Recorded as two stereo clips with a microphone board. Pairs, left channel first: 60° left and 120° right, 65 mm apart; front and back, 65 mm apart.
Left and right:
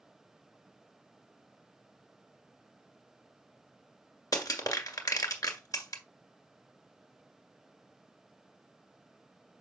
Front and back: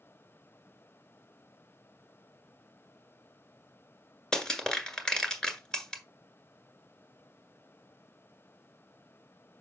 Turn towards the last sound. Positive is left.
turn(degrees=80)